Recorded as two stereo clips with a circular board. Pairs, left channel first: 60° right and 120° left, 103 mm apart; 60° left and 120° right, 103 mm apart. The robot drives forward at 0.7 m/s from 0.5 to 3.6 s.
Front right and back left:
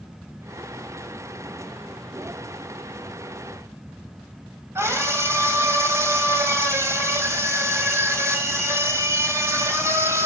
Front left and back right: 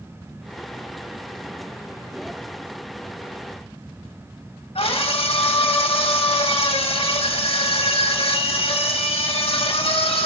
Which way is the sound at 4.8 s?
60° left.